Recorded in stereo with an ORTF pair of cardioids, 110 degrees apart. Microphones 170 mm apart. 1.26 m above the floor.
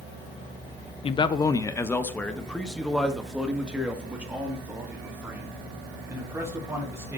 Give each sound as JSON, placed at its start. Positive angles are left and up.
{"t": 1.0, "sound": "a man speaking", "azimuth_deg": 30, "distance_m": 0.8}